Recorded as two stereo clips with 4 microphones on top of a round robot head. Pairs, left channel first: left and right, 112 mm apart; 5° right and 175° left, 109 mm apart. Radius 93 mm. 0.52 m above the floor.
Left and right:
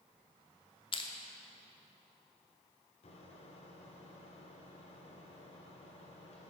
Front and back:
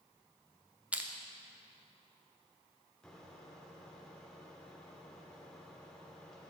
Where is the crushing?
100° left, 0.8 m.